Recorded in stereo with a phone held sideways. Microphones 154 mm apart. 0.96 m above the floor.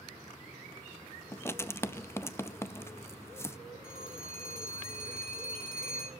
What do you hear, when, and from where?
1.3 s writing: 15° left (ahead or behind), 0.5 m
3.8 s a phone ringing: 75° left (ahead or behind), 5.5 m